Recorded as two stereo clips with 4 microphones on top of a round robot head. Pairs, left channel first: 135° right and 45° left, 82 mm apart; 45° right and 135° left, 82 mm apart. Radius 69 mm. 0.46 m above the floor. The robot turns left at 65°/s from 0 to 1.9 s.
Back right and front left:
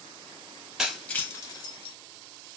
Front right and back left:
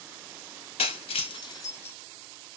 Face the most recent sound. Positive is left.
turn(degrees=-110)